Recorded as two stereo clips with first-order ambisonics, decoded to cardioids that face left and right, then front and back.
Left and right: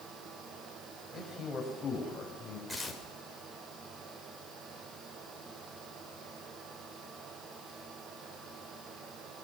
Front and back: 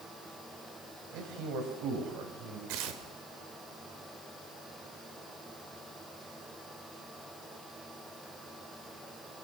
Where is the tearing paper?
Straight behind, 3 m.